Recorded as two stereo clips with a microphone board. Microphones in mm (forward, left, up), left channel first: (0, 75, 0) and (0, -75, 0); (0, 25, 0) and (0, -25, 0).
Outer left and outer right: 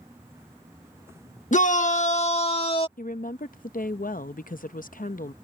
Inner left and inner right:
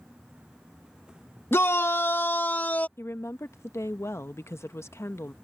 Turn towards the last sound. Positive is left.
turn(degrees=65)  # may be behind; listen again after turning